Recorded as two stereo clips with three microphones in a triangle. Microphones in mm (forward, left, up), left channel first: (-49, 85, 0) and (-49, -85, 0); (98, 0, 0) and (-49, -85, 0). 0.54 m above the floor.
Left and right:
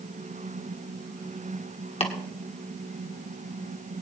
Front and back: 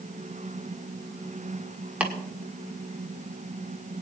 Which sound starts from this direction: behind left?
Chopping, at 2.0 s.